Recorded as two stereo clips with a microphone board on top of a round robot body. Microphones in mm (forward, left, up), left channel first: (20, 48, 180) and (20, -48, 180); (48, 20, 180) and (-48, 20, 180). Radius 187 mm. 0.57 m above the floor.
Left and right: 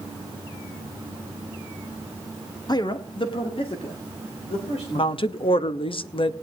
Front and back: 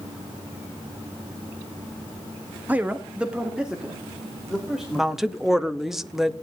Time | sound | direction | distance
2.7 | a man speaking | 115° left | 1.1 m
5.0 | a woman speaking | 95° left | 1.0 m